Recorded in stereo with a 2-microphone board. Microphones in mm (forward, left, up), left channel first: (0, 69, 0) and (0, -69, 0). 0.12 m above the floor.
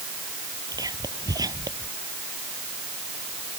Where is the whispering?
25° right (ahead or behind).